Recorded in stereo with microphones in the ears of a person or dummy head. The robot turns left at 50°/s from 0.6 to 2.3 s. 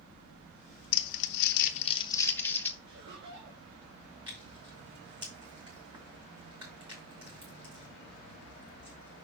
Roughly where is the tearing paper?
Right.